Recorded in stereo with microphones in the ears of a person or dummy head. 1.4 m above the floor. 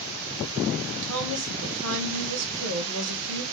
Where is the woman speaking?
65° right (ahead or behind), 1.5 m.